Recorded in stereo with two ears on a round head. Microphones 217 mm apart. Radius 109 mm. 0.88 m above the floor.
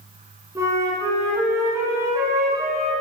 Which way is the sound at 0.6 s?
15° right (ahead or behind).